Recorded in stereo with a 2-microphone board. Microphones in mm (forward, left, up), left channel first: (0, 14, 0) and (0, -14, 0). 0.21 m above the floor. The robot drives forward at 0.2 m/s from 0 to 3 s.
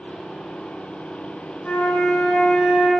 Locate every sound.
1.6 s a flute: 55° left (ahead or behind), 1.1 m; by 2.9 s 50° left (ahead or behind), 1.2 m